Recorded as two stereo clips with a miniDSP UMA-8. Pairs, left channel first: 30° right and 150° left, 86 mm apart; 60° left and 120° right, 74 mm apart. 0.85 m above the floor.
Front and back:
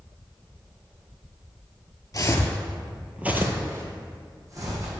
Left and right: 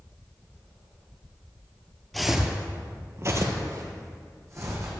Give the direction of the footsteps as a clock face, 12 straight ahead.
1 o'clock.